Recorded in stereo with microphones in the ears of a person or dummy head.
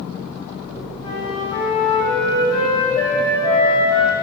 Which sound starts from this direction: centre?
A flute, at 1.0 s.